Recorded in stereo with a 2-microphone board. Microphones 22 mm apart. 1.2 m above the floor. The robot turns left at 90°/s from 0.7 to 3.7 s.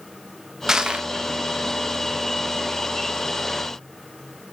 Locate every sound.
0.7 s crushing: 25° right, 0.9 m; by 1.1 s 60° right, 0.9 m